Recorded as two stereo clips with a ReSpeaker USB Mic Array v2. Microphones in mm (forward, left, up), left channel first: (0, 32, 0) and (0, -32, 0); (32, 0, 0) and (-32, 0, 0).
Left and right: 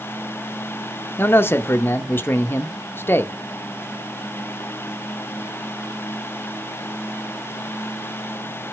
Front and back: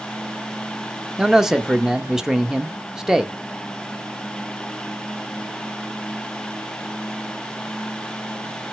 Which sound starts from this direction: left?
A man speaking, at 1.2 s.